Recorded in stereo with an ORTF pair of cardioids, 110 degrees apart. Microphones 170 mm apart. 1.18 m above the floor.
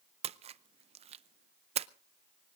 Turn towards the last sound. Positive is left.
turn(degrees=-40)